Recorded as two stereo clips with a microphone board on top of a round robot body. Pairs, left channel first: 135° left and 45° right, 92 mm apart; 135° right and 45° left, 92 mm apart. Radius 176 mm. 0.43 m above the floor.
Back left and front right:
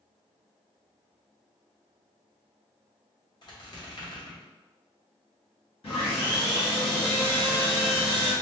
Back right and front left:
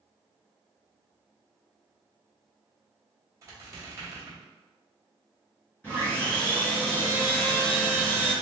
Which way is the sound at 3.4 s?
100° left.